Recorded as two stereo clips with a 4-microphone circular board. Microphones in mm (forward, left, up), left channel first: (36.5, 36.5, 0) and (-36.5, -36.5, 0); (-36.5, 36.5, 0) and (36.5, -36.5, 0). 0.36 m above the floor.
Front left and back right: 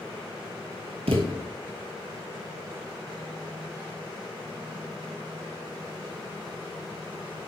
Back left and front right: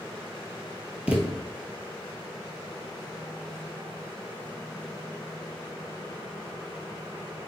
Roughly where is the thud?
Behind right.